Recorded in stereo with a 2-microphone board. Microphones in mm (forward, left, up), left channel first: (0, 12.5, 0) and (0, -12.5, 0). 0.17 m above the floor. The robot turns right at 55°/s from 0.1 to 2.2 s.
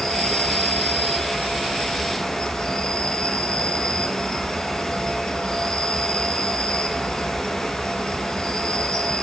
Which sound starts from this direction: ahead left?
An insect, at 0.0 s.